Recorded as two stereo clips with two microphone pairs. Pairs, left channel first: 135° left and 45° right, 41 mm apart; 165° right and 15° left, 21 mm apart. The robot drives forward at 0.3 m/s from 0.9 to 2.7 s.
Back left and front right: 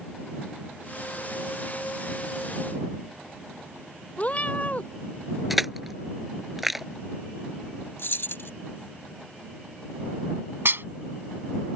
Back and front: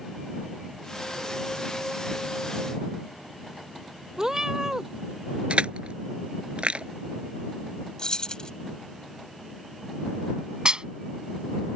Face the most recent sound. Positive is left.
turn(degrees=-25)